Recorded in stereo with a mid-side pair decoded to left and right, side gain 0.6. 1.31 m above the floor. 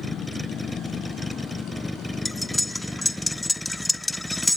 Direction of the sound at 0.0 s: 5° left.